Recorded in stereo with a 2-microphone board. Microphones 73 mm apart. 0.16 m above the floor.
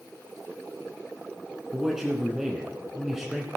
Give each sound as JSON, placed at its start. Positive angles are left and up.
{"t": 1.7, "sound": "a man speaking", "side_deg": -5, "distance_m": 1.5}